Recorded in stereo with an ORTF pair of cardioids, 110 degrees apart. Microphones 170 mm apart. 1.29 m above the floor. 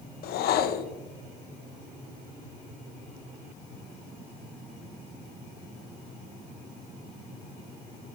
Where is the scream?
No scream in this recording.